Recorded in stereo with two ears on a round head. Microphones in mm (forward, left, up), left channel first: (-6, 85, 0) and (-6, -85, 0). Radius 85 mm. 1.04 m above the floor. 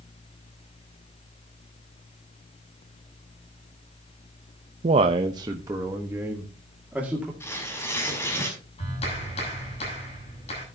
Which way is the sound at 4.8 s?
35° right (ahead or behind).